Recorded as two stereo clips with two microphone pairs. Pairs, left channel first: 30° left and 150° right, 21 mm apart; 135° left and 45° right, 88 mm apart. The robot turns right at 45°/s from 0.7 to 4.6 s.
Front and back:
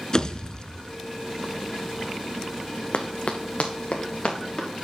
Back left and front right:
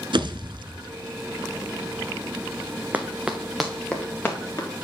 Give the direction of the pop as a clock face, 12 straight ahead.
1 o'clock.